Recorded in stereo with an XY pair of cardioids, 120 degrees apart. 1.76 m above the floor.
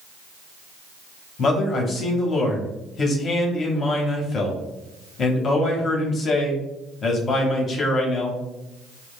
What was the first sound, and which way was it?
A man speaking, 40° left.